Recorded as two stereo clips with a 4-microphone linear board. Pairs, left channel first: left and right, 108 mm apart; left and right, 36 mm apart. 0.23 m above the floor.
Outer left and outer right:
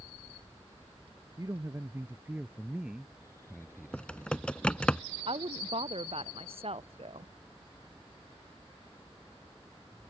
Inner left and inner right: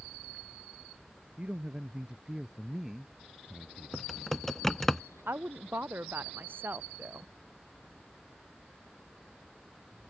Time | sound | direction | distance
1.4 | a man speaking | 35° right (ahead or behind) | ?
3.9 | typing on a keyboard | 10° left (ahead or behind) | ?
5.3 | a woman speaking | 60° right (ahead or behind) | ?